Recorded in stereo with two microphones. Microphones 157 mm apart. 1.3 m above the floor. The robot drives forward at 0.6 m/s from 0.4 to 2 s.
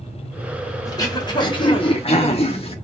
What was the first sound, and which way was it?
Throat clearing, 25° left (ahead or behind).